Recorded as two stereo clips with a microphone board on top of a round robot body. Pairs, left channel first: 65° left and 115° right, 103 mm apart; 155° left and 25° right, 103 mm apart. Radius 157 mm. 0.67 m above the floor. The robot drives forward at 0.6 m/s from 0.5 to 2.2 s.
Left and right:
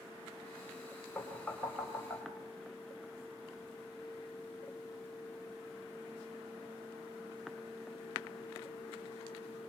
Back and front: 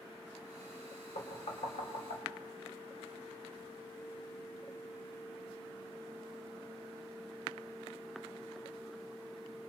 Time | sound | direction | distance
1.1 | knocking | 150° left | 4 m